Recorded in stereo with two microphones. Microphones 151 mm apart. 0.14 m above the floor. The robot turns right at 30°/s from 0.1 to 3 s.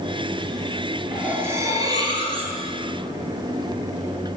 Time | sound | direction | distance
1.1 | cutlery clinking | 170° right | 1.3 m